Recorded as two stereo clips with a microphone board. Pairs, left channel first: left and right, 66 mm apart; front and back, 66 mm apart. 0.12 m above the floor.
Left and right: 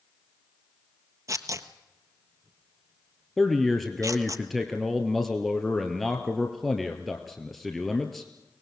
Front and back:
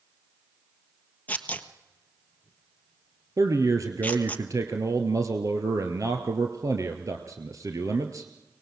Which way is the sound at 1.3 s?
60° right.